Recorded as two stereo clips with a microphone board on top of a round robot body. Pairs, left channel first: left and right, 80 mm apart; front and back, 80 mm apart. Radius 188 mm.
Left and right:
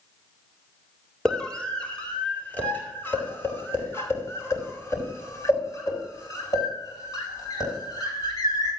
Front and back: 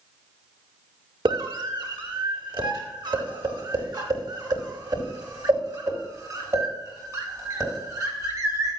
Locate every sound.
1.2 s a scream: 170° left, 3.5 m; by 8.7 s 130° left, 7.5 m